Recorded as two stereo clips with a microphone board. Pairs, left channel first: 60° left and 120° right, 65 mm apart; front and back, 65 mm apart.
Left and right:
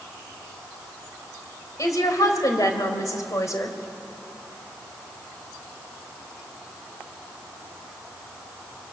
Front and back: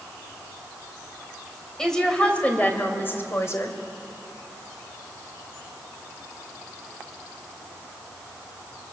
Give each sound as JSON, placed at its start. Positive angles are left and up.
{"t": 1.8, "sound": "a woman speaking", "azimuth_deg": 80, "distance_m": 3.0}